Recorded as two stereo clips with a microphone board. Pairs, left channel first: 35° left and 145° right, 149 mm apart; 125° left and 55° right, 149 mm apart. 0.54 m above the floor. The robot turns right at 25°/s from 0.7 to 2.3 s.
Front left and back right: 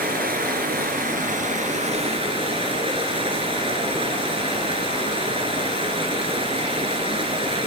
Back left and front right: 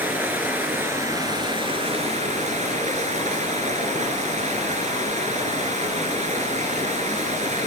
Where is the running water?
135° right, 3.5 m; by 7.7 s 95° right, 3.5 m.